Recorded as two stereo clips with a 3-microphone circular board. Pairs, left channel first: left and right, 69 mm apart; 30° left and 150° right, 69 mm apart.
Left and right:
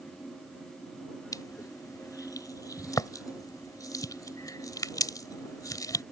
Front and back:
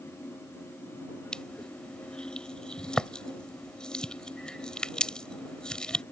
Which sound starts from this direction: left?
Crushing, at 1.3 s.